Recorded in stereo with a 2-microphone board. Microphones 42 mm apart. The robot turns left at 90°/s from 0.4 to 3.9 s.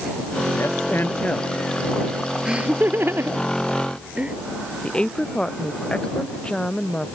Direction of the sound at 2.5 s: 20° right (ahead or behind).